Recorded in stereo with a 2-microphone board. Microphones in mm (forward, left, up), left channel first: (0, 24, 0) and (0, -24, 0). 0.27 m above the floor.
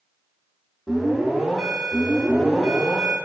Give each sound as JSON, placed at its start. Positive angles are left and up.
{"t": 0.9, "sound": "an alarm", "side_deg": -5, "distance_m": 1.4}